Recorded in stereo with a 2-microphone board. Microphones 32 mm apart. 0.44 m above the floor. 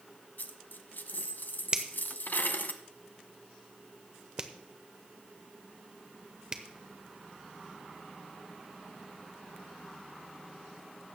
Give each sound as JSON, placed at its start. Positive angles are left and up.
{"t": 0.4, "sound": "a dropped coin", "side_deg": 85, "distance_m": 0.8}
{"t": 1.7, "sound": "a finger snap", "side_deg": -30, "distance_m": 0.9}